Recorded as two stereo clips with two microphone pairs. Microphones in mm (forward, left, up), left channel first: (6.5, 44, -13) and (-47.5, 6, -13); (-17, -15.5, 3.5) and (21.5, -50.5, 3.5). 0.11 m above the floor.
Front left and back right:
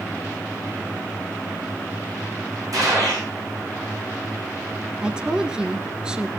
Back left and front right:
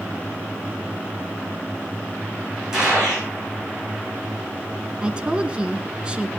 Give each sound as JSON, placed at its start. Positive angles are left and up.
{"t": 2.7, "sound": "a gunshot", "azimuth_deg": -115, "distance_m": 7.5}
{"t": 5.0, "sound": "a woman speaking", "azimuth_deg": -85, "distance_m": 1.2}